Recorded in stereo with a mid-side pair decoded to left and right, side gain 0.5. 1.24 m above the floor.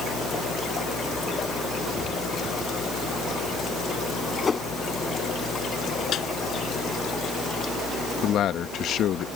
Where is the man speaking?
65° left.